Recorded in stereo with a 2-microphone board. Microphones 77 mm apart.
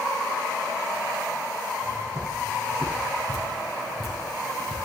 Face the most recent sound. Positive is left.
turn(degrees=0)  # may be behind; listen again after turning